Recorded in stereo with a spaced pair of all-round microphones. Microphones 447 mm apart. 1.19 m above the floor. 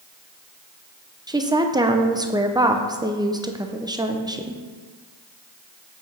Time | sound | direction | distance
1.3 | a woman speaking | 10° right (ahead or behind) | 0.6 m